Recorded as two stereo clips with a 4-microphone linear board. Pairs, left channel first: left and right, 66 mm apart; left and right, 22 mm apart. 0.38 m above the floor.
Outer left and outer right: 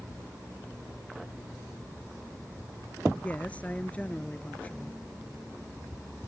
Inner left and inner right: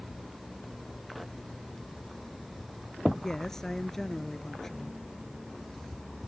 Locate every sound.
3.1 s a woman speaking: 20° left (ahead or behind)